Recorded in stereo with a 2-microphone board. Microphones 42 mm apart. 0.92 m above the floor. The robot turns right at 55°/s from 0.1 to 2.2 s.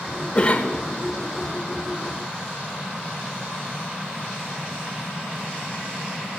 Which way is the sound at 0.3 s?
25° left (ahead or behind).